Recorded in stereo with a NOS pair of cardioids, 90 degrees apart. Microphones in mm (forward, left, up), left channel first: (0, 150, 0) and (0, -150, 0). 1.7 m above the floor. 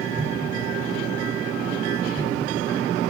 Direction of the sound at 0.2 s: 10° right.